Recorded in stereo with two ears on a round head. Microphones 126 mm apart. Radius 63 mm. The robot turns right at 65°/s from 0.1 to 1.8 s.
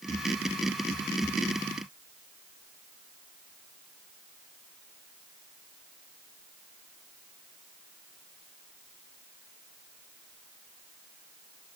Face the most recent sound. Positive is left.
No sound to turn to.